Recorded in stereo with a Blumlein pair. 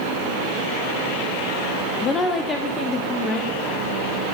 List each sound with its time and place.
2.0 s a woman speaking: 20° left, 0.8 m; by 3.8 s 10° left, 1.9 m